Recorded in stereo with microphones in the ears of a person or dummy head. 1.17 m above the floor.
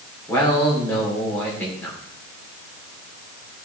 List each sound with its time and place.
0.3 s a man speaking: 10° left (ahead or behind), 3 m